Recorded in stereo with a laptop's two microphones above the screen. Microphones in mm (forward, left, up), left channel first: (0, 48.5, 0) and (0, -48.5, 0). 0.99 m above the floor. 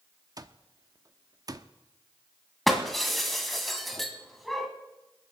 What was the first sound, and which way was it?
An alarm clock, 40° right (ahead or behind).